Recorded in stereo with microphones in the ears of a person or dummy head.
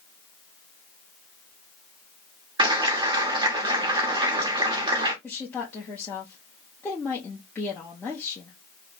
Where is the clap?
25° right (ahead or behind), 1.0 m.